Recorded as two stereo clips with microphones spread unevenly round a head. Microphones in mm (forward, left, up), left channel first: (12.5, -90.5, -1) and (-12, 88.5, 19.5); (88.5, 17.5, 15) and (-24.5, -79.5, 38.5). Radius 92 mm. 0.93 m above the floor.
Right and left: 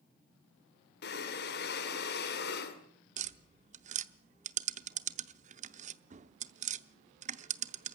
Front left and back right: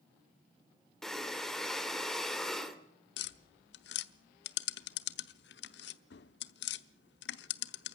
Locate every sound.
1.0 s breathing: 45° right, 2.5 m
3.2 s tapping: 55° left, 0.7 m